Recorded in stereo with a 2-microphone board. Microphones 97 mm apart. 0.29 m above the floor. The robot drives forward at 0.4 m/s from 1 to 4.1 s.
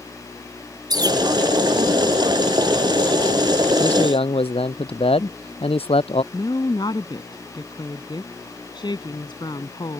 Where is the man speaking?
80° left.